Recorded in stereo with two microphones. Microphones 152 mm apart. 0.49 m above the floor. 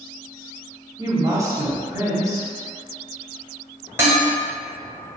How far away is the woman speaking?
About 1.0 m.